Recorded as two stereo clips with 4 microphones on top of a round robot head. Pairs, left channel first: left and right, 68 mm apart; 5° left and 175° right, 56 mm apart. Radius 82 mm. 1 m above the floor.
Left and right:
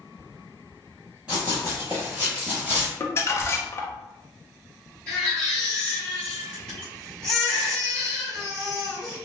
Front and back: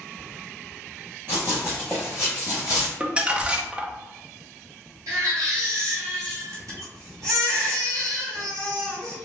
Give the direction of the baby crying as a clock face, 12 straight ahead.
6 o'clock.